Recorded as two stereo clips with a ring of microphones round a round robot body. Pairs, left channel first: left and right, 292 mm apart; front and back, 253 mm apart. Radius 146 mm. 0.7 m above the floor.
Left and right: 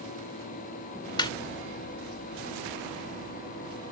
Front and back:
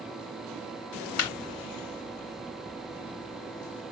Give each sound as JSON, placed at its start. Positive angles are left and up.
{"t": 1.2, "sound": "laughter", "azimuth_deg": 15}